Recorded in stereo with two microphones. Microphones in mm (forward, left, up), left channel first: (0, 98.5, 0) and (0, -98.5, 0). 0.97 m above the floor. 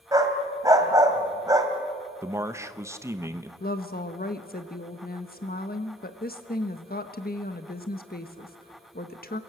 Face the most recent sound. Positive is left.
turn(degrees=50)  # may be behind; listen again after turning